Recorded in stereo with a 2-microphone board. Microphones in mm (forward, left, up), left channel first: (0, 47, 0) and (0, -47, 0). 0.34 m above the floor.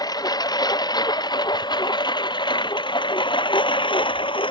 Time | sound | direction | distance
0.0 | a lawn mower | 45° left (ahead or behind) | ?